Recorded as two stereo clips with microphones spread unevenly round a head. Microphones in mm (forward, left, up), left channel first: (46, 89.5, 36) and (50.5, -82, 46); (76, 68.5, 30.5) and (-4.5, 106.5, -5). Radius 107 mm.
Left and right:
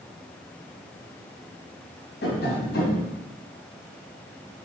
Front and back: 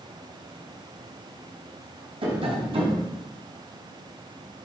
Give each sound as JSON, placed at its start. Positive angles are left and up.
{"t": 2.2, "sound": "tapping", "azimuth_deg": 135, "distance_m": 4.0}